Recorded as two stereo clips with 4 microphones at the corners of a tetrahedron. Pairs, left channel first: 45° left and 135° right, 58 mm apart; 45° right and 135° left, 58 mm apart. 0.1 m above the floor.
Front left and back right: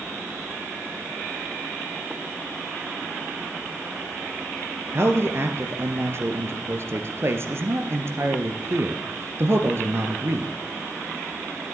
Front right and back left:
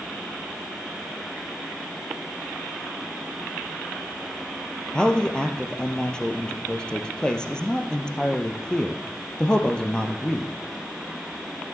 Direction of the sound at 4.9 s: 115° right.